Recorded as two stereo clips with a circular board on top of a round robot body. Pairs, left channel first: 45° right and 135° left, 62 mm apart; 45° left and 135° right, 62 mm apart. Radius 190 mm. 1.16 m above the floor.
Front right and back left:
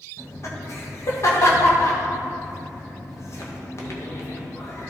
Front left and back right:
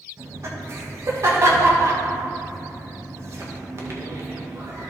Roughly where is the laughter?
Right.